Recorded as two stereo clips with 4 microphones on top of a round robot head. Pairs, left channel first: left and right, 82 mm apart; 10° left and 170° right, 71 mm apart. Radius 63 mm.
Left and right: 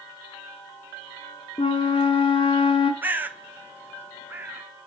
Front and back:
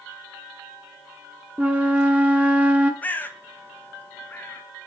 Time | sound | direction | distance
1.6 | a flute | 125° left | 0.8 m
3.0 | a bird | 40° right | 0.8 m